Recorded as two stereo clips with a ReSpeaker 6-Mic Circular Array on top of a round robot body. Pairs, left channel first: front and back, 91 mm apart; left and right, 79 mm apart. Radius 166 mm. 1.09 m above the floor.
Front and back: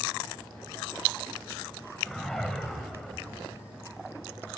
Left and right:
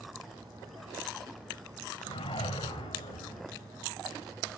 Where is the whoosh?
85° left, 3.5 m.